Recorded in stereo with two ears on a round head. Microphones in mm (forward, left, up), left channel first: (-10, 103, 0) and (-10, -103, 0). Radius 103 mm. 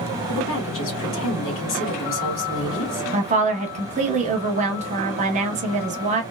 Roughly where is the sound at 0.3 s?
Left.